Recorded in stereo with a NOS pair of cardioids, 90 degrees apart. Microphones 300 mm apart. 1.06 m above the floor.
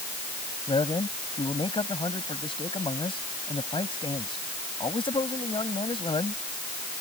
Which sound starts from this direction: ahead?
A man speaking, at 0.7 s.